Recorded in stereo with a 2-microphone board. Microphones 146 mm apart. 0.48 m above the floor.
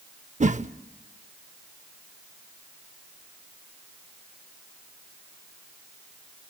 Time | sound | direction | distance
0.4 | a whoosh | 50° right (ahead or behind) | 0.6 m